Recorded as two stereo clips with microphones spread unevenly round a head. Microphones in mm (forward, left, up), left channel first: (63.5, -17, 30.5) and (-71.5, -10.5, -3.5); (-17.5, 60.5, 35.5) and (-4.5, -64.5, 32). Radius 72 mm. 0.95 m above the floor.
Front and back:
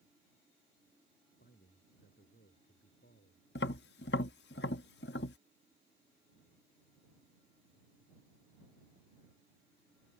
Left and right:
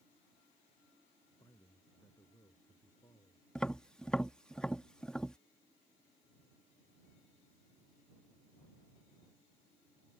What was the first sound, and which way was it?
A man speaking, 25° left.